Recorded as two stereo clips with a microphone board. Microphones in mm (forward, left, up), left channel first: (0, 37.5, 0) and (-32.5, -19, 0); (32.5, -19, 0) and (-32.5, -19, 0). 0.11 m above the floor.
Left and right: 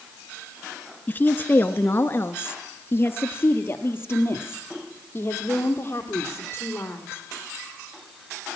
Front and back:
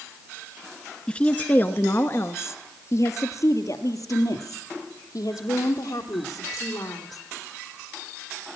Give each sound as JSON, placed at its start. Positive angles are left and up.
{"t": 1.1, "sound": "a woman speaking", "azimuth_deg": 55, "distance_m": 1.2}